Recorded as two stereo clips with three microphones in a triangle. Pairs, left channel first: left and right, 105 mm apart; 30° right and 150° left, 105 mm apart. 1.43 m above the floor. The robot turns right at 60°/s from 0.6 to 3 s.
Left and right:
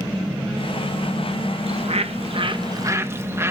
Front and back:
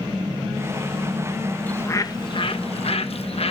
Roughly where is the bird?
Right.